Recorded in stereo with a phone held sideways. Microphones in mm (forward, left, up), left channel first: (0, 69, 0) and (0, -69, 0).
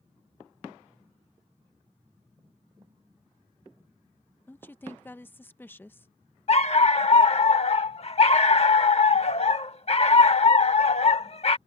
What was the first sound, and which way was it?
A woman speaking, 15° left (ahead or behind).